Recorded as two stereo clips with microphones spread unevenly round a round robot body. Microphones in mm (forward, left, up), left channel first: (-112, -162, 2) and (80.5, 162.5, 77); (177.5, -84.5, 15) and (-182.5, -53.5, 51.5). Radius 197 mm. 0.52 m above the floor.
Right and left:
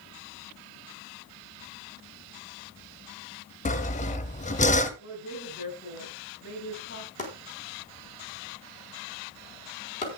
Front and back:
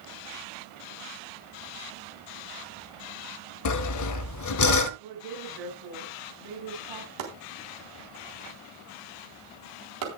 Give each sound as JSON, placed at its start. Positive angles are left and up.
{"t": 3.6, "sound": "sawing", "azimuth_deg": -50, "distance_m": 1.0}
{"t": 5.0, "sound": "a woman speaking", "azimuth_deg": 175, "distance_m": 7.5}
{"t": 7.2, "sound": "chopping", "azimuth_deg": 170, "distance_m": 4.0}